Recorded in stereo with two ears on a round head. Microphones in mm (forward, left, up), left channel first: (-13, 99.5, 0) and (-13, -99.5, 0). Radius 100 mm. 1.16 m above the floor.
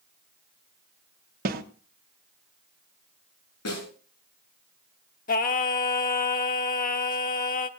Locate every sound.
1.4 s a snare drum: 40° right (ahead or behind), 1.3 m
3.6 s a snare drum: 85° left, 10 m
5.3 s singing: 40° left (ahead or behind), 1.0 m